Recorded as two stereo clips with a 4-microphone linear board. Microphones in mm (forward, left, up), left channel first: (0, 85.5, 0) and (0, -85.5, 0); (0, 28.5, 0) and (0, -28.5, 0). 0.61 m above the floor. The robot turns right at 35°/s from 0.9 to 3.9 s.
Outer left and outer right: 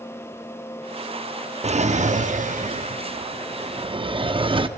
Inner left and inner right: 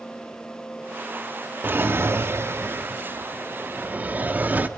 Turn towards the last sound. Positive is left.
turn(degrees=-45)